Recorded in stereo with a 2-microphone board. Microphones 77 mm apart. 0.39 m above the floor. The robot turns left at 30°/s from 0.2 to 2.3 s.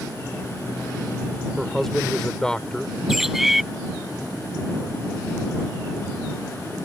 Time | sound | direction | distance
1.6 | a man speaking | centre (ahead or behind) | ?
3.1 | a bird | 5° right (ahead or behind) | ?